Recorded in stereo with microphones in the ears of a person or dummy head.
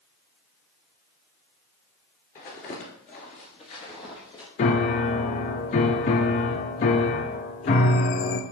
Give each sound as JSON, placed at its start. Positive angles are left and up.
{"t": 2.4, "sound": "footsteps", "side_deg": 30, "distance_m": 1.8}
{"t": 4.6, "sound": "a piano", "side_deg": 35, "distance_m": 0.6}